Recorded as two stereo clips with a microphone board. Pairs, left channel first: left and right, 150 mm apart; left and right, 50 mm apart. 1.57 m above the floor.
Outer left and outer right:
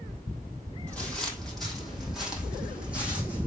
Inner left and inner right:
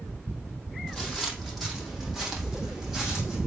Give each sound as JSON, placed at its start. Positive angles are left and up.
{"t": 0.9, "sound": "footsteps", "side_deg": 10, "distance_m": 3.0}